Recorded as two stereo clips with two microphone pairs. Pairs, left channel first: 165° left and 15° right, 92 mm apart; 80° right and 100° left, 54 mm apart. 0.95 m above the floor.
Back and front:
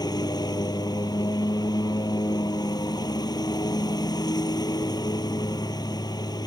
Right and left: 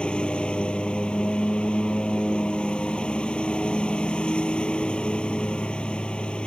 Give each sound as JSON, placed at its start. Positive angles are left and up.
{"t": 0.0, "sound": "a lawn mower", "azimuth_deg": -150}